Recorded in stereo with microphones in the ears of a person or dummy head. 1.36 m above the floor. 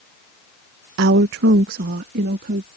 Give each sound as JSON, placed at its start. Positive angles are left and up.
{"t": 1.0, "sound": "a woman speaking", "side_deg": -70}